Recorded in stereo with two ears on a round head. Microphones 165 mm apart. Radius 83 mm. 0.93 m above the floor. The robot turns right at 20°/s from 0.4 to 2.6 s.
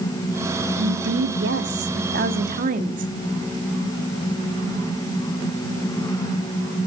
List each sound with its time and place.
0.8 s a woman speaking: 85° right, 2 m; by 3.1 s 45° right, 2 m